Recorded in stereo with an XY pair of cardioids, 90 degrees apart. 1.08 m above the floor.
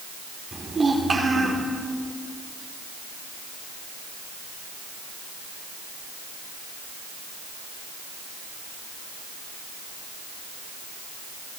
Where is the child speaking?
35° right, 2.5 m.